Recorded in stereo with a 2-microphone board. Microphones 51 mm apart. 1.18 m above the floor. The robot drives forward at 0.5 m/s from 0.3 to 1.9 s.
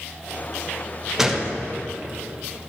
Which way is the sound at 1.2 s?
5° right (ahead or behind).